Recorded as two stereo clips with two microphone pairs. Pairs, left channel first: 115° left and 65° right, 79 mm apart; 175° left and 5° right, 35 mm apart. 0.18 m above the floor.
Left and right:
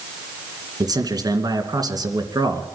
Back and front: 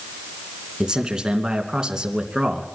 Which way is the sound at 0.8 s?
65° right.